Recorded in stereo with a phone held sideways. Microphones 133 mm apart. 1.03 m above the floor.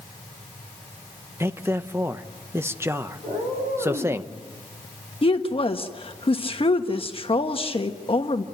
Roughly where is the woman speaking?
Left.